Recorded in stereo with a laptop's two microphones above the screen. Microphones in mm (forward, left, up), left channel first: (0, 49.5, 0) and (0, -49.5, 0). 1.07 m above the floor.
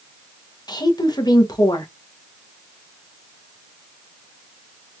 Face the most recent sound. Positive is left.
turn(degrees=45)  # may be behind; listen again after turning